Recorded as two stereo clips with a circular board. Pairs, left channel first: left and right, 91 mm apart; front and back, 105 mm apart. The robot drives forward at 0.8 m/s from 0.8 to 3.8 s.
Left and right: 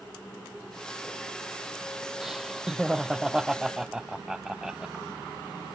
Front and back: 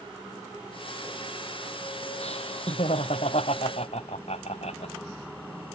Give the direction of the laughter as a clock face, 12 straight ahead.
12 o'clock.